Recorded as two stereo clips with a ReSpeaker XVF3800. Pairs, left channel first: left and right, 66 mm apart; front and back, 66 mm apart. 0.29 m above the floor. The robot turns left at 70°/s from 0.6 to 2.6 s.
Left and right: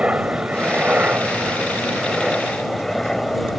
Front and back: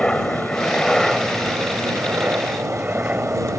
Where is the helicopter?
55° right; by 3.6 s 170° left.